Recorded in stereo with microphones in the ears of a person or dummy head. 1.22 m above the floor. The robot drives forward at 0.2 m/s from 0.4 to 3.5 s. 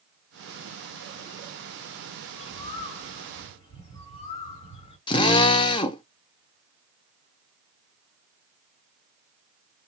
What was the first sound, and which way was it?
A bird, 30° left (ahead or behind).